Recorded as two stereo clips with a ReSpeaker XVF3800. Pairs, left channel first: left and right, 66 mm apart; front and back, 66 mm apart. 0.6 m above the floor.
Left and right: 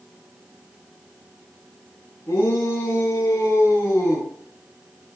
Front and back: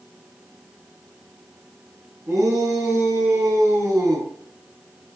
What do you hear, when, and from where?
2.3 s a shout: 145° left, 7 m